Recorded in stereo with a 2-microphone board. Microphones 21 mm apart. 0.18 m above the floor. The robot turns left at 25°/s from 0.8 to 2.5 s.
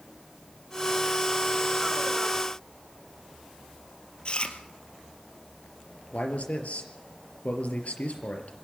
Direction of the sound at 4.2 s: 45° left (ahead or behind).